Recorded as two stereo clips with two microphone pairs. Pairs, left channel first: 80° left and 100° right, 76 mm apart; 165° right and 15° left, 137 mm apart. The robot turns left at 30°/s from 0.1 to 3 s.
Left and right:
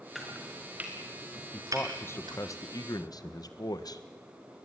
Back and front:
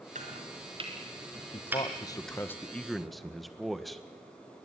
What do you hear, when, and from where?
0.1 s chopping: 10° right, 4 m; by 2.4 s 80° right, 4 m
1.5 s a man speaking: 150° left, 1.5 m; by 4.0 s 105° left, 1.5 m